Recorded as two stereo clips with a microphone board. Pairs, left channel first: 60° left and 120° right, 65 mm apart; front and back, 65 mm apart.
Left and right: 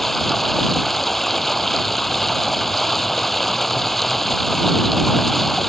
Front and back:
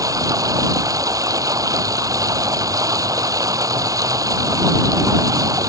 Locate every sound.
0.0 s running water: 150° left